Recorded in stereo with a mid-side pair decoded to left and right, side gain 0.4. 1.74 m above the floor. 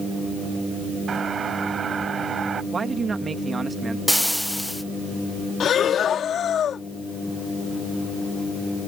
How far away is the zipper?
I don't hear a zipper.